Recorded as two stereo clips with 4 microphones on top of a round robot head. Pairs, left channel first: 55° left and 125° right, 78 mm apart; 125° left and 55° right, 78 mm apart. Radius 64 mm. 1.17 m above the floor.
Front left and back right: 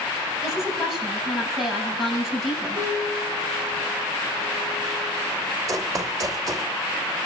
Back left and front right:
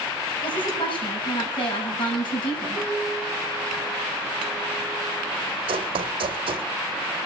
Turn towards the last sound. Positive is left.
turn(degrees=-75)